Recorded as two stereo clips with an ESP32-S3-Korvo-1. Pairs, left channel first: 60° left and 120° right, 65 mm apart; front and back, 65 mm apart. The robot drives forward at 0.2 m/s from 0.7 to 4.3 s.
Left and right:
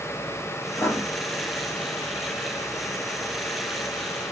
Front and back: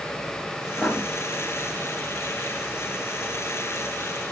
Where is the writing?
55° left, 0.8 m; by 1.0 s 60° left, 0.7 m.